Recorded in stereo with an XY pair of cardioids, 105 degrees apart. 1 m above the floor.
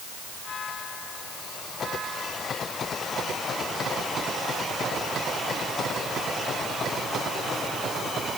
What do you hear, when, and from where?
Only background noise.